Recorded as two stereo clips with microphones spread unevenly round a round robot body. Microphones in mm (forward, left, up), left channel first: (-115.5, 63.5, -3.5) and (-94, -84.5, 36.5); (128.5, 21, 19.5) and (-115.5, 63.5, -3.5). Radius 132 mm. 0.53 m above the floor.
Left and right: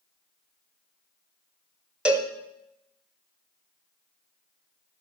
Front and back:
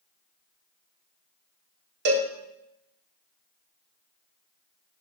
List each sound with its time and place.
2.0 s a cowbell: straight behind, 1.1 m